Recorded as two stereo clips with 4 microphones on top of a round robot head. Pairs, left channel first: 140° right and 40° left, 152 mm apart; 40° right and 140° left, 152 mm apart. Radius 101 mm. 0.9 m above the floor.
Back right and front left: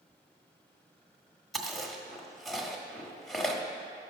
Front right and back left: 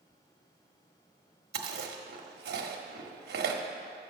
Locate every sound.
1.5 s chewing: 130° left, 1.3 m